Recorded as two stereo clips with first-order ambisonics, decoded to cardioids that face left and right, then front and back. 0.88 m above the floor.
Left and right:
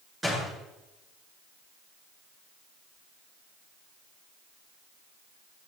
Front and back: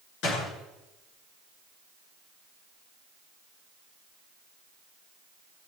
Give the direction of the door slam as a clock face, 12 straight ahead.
12 o'clock.